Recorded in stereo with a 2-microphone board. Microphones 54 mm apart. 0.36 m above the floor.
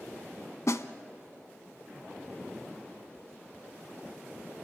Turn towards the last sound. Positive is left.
turn(degrees=75)  # may be behind; listen again after turning